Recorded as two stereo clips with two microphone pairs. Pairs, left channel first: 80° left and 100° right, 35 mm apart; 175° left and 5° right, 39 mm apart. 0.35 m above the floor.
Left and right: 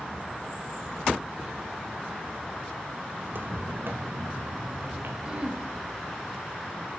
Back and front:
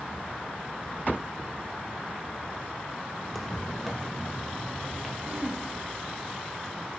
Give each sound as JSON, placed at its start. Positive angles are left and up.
{"t": 3.2, "sound": "footsteps", "azimuth_deg": -100, "distance_m": 0.9}
{"t": 5.2, "sound": "throat clearing", "azimuth_deg": -45, "distance_m": 1.7}